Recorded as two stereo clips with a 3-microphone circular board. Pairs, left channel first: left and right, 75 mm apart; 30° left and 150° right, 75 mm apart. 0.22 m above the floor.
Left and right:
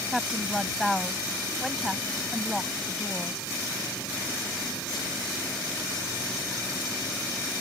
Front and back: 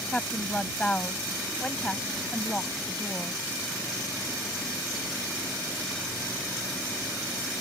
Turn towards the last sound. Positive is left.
turn(degrees=0)